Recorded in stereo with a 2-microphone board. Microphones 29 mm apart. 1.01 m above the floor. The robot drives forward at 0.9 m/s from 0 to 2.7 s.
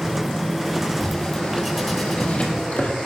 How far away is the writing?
About 5.5 m.